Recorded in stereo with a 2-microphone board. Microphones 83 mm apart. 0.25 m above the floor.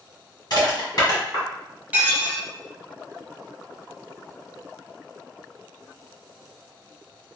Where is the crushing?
50° left (ahead or behind), 1.8 m.